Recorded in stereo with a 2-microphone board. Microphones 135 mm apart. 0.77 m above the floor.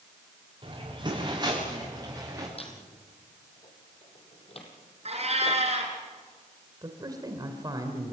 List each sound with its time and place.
0.6 s footsteps: 35° right (ahead or behind), 8.5 m; by 2.5 s 20° right (ahead or behind), 9.5 m
2.6 s a squeak: 45° left (ahead or behind), 3.5 m
5.0 s a cat meowing: 50° right (ahead or behind), 4 m
6.8 s a man speaking: 30° right (ahead or behind), 2.5 m